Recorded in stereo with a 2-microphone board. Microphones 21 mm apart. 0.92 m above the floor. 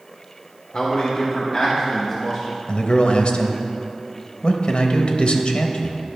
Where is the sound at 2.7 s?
55° left (ahead or behind), 0.8 m.